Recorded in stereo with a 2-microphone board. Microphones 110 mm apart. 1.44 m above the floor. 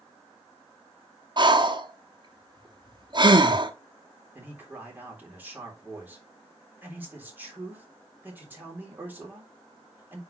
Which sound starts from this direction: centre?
A man speaking, at 4.3 s.